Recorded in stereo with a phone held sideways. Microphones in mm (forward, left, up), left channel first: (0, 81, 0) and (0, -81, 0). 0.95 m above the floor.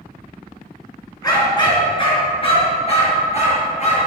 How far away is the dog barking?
About 3 m.